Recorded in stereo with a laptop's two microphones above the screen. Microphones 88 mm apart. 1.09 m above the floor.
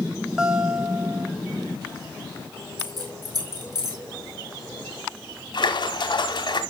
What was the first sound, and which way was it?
A guitar, 5° right (ahead or behind).